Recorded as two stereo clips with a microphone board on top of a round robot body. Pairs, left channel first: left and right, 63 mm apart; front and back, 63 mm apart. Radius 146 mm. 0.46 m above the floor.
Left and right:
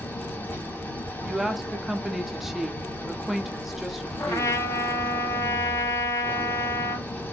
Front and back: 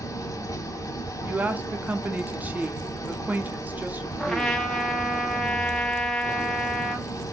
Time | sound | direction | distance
0.0 | an engine running | 25° left | 1.0 m
1.2 | a woman speaking | 170° right | 0.8 m
4.2 | a trumpet | 80° left | 1.0 m